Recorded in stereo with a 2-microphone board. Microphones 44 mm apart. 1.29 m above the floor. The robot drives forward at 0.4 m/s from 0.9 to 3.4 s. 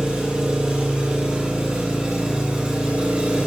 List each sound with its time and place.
0.0 s an engine running: 25° right (ahead or behind), 4 m; by 3.5 s 30° right (ahead or behind), 3 m